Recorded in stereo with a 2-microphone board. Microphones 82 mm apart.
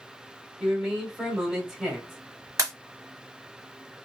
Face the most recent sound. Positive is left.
turn(degrees=-45)  # may be behind; listen again after turning